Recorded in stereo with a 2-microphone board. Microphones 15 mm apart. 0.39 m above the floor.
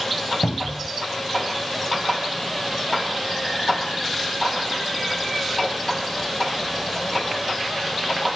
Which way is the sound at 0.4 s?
65° left (ahead or behind).